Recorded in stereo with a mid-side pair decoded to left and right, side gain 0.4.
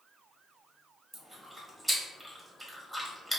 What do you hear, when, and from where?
1.1 s chewing: 20° right, 1.7 m